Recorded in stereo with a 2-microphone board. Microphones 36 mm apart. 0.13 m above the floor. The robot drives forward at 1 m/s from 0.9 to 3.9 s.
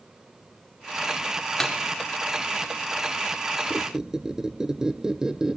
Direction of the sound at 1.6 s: 5° left (ahead or behind).